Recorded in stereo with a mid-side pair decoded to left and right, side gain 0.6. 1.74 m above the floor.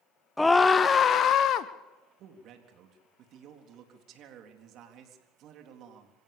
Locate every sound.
0.4 s a scream: 5° left, 0.9 m; by 1.7 s 60° left, 1.3 m
2.2 s a man speaking: 60° right, 4 m